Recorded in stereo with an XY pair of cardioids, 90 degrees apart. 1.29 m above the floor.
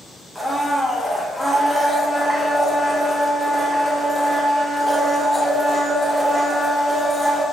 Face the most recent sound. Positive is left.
turn(degrees=0)